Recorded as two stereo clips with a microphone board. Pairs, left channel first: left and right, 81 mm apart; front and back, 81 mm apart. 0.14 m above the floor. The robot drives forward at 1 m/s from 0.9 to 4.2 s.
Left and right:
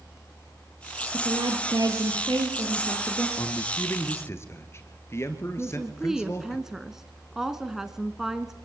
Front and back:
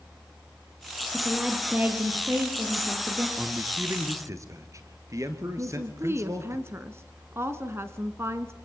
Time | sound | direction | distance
1.1 | a woman speaking | 95° right | 2.5 m
3.4 | a man speaking | 115° left | 1.6 m
5.6 | a woman speaking | 170° right | 1.2 m